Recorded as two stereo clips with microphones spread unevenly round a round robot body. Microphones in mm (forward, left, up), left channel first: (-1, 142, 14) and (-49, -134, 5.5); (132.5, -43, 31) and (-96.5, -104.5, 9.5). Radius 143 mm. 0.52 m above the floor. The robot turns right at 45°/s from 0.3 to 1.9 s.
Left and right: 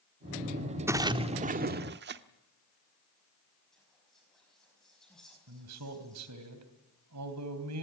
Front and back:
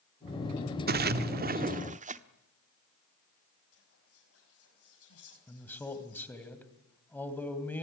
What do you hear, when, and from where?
0.9 s a splash: 175° right, 1.0 m; by 2.2 s 130° right, 1.0 m
3.7 s whispering: 10° right, 4.5 m
5.5 s a man speaking: 70° right, 3 m